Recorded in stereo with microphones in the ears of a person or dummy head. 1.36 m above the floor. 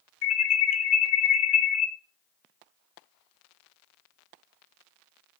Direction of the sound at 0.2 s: 80° left.